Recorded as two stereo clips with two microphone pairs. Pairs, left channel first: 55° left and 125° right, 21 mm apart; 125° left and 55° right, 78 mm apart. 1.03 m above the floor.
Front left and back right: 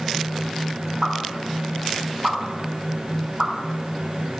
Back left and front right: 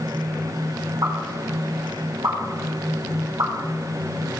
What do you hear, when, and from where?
1.0 s a pop: 85° right, 3.5 m